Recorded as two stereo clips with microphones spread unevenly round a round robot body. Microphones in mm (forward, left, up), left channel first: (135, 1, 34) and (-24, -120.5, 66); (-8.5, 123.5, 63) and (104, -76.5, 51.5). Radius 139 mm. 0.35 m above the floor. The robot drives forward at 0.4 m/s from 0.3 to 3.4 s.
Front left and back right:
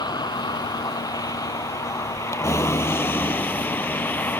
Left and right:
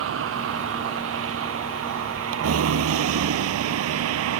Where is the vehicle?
35° right; by 4.4 s 45° right.